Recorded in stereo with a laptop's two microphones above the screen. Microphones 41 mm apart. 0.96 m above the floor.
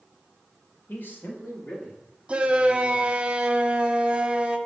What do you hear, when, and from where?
0.9 s a man speaking: 50° left (ahead or behind), 1.3 m
2.3 s a shout: 25° right (ahead or behind), 0.9 m